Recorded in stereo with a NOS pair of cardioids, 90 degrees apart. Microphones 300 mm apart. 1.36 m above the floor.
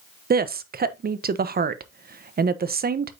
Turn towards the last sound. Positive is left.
turn(degrees=-30)